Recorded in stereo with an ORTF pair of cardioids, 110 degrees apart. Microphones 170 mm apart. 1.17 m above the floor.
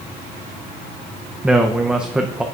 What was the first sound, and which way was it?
A man speaking, 5° right.